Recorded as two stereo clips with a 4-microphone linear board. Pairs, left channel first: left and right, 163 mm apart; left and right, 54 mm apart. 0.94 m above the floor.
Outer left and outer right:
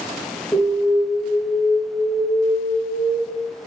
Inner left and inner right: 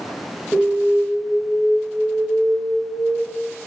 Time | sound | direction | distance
0.5 | an alarm | 15° left (ahead or behind) | 5.5 m